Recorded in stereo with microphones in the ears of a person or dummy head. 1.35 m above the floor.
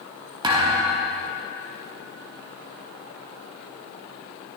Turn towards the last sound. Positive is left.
turn(degrees=-20)  # may be behind; listen again after turning